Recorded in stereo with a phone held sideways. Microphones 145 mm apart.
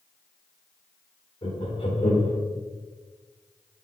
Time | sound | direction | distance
1.4 | laughter | 45° left (ahead or behind) | 2.5 m